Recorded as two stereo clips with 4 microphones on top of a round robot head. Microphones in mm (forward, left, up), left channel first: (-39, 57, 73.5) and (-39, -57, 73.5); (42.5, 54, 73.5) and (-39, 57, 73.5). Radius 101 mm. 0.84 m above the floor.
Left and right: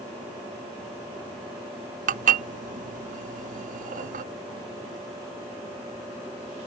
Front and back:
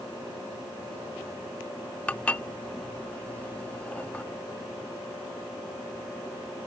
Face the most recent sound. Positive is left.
turn(degrees=-80)